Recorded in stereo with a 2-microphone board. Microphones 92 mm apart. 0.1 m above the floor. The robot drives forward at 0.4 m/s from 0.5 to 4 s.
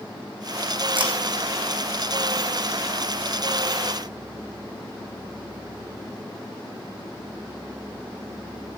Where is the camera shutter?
65° right (ahead or behind), 3 m; by 1.1 s 60° right (ahead or behind), 3 m.